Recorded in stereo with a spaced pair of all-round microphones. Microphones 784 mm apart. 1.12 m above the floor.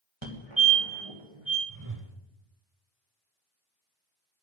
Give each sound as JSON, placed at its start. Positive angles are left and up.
{"t": 0.2, "sound": "a fire alarm", "side_deg": -35, "distance_m": 1.8}
{"t": 1.7, "sound": "a whoosh", "side_deg": -25, "distance_m": 1.0}